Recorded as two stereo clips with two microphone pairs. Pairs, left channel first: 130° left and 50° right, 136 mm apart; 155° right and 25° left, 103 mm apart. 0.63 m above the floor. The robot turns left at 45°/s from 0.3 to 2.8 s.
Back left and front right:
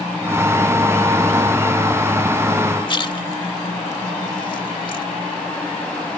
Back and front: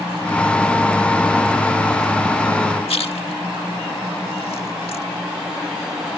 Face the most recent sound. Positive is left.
turn(degrees=-175)